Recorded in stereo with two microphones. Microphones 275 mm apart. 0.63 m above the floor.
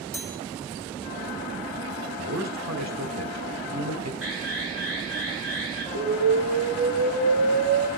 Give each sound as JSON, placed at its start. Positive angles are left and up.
{"t": 0.1, "sound": "a chime", "side_deg": -60, "distance_m": 4.0}
{"t": 2.2, "sound": "a man speaking", "side_deg": -75, "distance_m": 2.5}
{"t": 4.2, "sound": "an alarm", "side_deg": -50, "distance_m": 9.5}
{"t": 6.0, "sound": "an explosion", "side_deg": -80, "distance_m": 3.0}